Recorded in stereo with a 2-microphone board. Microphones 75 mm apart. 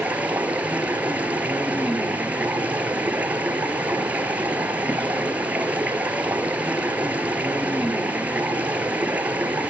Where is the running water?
20° right (ahead or behind), 1.9 m.